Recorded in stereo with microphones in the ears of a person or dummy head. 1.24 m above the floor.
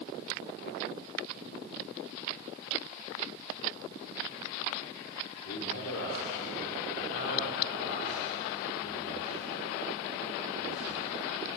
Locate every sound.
5.5 s a man speaking: 70° left (ahead or behind), 3.5 m